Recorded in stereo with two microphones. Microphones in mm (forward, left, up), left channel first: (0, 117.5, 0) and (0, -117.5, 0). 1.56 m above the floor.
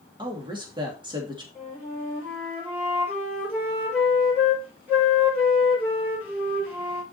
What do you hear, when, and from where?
0.2 s a woman speaking: 20° right (ahead or behind), 3 m
1.6 s a flute: 5° right (ahead or behind), 6 m